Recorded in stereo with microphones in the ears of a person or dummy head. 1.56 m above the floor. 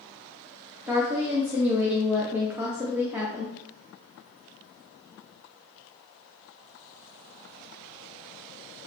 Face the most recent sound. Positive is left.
turn(degrees=-10)  # may be behind; listen again after turning